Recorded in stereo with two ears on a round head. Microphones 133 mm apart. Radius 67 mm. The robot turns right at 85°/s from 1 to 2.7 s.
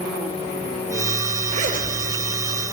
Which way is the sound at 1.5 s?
45° right (ahead or behind).